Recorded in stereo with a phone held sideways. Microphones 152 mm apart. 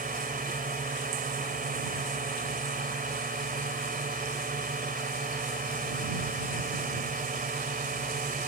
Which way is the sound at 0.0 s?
65° right (ahead or behind).